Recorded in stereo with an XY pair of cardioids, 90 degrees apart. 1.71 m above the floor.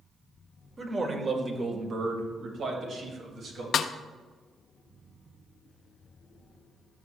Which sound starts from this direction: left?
A snare drum, at 3.7 s.